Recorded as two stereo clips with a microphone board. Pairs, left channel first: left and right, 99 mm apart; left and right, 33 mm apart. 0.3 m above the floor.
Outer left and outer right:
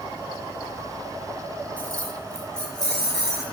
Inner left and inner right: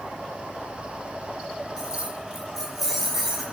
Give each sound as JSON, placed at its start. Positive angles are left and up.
{"t": 1.8, "sound": "keys jangling", "side_deg": 15, "distance_m": 3.0}